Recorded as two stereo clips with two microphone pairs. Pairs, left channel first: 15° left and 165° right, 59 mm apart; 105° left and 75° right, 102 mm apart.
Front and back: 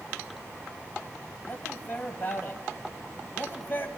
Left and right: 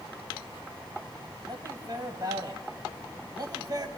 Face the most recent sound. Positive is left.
turn(degrees=-35)